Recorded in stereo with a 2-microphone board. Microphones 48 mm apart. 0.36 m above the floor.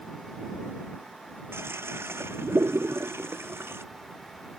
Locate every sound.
1.5 s a toilet flushing: 60° right (ahead or behind)